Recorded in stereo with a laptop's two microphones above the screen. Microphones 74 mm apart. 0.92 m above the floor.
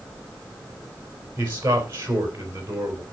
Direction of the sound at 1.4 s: 35° right (ahead or behind).